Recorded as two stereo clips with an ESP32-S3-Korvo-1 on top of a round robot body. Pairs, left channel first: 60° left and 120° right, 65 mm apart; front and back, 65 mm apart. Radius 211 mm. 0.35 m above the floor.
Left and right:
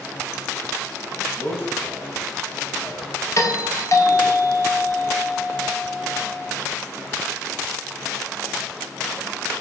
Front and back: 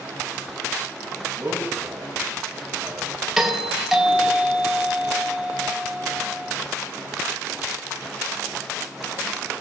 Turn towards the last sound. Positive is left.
turn(degrees=95)